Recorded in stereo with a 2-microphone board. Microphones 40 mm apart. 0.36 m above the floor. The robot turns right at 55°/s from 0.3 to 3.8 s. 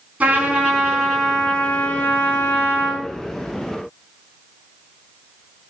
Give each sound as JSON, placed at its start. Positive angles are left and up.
{"t": 0.2, "sound": "a trumpet", "azimuth_deg": -40, "distance_m": 4.0}